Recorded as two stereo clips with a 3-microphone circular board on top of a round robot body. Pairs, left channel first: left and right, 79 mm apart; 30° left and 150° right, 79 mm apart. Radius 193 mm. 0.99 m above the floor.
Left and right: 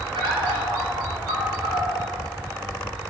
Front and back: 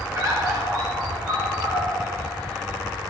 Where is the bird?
95° right, 5.5 m.